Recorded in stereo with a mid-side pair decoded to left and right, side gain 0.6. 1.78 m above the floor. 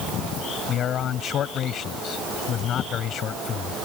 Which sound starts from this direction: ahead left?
A man speaking, at 0.7 s.